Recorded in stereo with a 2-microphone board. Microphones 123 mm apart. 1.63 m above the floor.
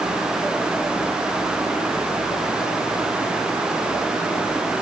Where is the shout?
No shout in this recording.